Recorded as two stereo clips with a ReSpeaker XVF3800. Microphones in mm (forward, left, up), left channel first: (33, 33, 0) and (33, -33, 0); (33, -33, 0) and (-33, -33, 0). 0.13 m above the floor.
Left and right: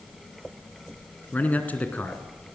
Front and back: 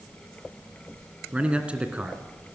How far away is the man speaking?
About 1.9 m.